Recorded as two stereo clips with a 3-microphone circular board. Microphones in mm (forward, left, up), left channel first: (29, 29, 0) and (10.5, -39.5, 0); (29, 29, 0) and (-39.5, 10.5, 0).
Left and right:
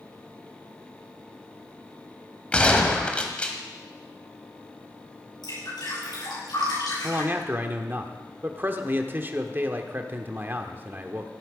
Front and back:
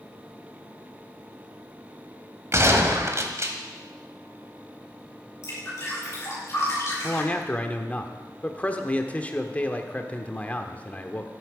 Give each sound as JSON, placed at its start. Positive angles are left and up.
{"t": 2.5, "sound": "a gunshot", "azimuth_deg": 150, "distance_m": 1.5}
{"t": 5.4, "sound": "dripping", "azimuth_deg": 65, "distance_m": 7.0}
{"t": 7.0, "sound": "a man speaking", "azimuth_deg": -50, "distance_m": 1.1}